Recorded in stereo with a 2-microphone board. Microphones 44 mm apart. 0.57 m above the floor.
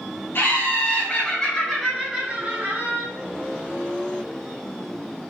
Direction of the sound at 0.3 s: 50° left (ahead or behind).